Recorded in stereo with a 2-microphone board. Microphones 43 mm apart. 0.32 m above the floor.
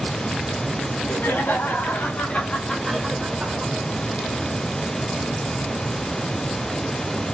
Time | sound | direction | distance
0.8 | laughter | 65° left (ahead or behind) | 3.5 m